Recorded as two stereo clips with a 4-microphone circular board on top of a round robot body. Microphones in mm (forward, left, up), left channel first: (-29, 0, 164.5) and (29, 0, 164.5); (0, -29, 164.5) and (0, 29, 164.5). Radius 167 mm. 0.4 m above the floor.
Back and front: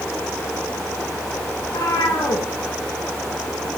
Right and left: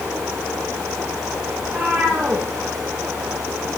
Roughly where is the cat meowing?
Behind.